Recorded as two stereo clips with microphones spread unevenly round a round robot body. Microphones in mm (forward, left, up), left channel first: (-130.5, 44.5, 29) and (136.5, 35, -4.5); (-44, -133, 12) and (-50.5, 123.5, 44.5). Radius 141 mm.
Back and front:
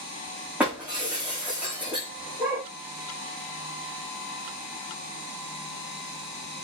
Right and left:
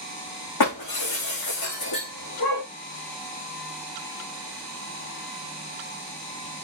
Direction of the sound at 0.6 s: 90° right.